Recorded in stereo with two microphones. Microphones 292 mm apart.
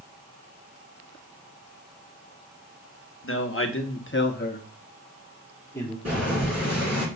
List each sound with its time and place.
3.2 s a man speaking: 45° left (ahead or behind), 1.1 m; by 6.0 s 10° left (ahead or behind), 1.4 m
6.0 s boiling: 60° right (ahead or behind), 3.5 m